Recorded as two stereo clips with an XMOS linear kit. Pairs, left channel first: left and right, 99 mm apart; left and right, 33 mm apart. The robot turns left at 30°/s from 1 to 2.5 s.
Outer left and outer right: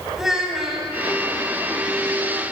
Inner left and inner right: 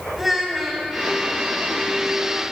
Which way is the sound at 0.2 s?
5° right (ahead or behind).